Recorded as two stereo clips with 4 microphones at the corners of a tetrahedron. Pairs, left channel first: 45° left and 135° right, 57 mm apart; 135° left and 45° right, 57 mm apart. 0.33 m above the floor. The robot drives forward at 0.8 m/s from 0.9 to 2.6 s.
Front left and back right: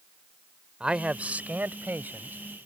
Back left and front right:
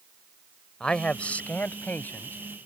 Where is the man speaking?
Straight behind.